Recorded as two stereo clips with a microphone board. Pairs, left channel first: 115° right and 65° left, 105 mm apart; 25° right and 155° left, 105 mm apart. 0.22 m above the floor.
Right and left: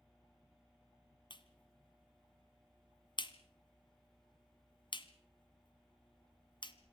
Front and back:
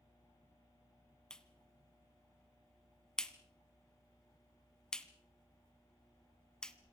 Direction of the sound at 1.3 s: 105° right.